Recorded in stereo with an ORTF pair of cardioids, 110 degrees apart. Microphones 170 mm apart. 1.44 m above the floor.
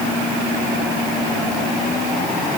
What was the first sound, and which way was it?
Only background noise.